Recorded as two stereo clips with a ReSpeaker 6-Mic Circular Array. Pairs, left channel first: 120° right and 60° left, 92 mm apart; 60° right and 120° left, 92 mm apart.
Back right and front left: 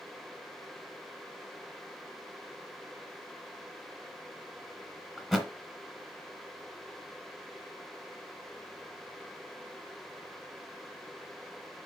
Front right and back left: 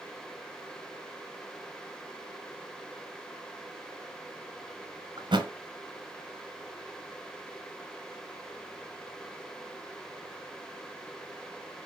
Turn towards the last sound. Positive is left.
turn(degrees=150)